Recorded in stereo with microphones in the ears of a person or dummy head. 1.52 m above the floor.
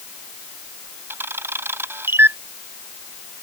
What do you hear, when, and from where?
1.1 s a camera shutter: 15° right (ahead or behind)